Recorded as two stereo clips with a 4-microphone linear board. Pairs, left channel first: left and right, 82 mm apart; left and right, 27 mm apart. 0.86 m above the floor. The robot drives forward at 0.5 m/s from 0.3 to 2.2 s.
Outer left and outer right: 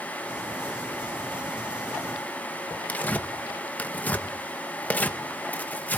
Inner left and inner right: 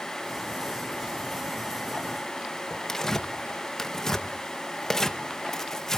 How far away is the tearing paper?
About 1.0 m.